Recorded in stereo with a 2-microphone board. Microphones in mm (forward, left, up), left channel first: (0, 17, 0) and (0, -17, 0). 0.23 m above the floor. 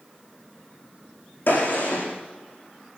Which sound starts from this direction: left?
A gunshot, at 1.5 s.